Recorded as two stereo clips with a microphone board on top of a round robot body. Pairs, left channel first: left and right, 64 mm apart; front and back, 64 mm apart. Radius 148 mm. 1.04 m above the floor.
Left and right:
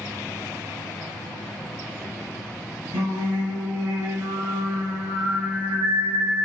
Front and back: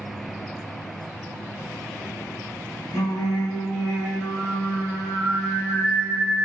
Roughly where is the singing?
Ahead right.